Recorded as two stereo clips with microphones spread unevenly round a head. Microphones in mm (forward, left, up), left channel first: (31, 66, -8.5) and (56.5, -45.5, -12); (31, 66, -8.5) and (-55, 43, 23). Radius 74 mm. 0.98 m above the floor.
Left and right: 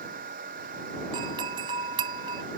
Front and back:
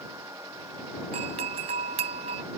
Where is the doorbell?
140° right.